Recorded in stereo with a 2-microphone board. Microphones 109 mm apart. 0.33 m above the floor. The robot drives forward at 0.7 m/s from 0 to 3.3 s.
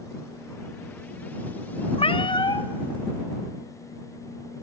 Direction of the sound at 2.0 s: 60° left (ahead or behind).